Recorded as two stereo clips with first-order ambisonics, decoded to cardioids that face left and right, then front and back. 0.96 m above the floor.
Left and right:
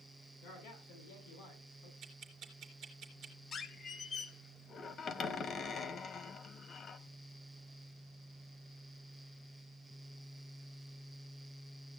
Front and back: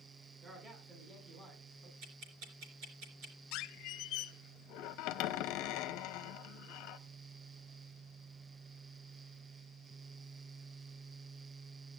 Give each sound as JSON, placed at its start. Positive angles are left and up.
{"t": 0.4, "sound": "a man speaking", "azimuth_deg": 120, "distance_m": 10.0}
{"t": 2.0, "sound": "ticking", "azimuth_deg": -150, "distance_m": 3.5}
{"t": 3.5, "sound": "a squeak", "azimuth_deg": 25, "distance_m": 0.7}